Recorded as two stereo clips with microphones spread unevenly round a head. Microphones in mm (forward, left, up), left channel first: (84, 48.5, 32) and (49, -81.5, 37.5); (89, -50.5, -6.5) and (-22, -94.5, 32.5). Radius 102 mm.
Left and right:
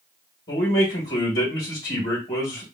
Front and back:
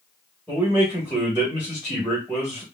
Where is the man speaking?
115° left, 1.7 m.